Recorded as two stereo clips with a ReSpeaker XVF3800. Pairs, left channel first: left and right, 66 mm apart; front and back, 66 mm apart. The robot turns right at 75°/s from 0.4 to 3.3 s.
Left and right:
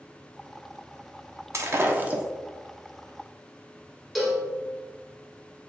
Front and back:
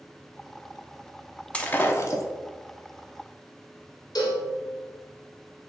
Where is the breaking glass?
70° right, 0.6 m; by 2.2 s 15° right, 0.6 m.